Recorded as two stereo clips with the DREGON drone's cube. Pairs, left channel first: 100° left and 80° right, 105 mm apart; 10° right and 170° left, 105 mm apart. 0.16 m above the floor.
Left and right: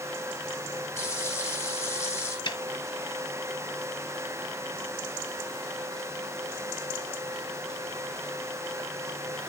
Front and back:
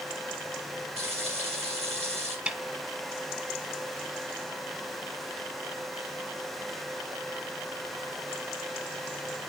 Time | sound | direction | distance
1.0 | frying | 165° left | 3.5 m
2.5 | a snare drum | 95° left | 0.9 m